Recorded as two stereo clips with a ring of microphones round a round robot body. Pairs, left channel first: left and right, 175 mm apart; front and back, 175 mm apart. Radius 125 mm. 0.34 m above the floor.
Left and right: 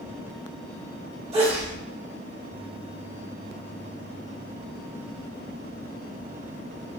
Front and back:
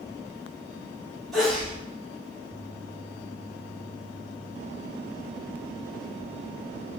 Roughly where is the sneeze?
Right.